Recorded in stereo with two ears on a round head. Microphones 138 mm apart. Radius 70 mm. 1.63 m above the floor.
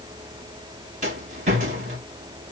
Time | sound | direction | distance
1.0 | a rattle | 45° right (ahead or behind) | 2.5 m